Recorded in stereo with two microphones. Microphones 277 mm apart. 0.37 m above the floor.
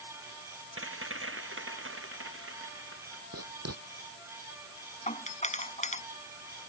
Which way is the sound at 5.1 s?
25° left (ahead or behind).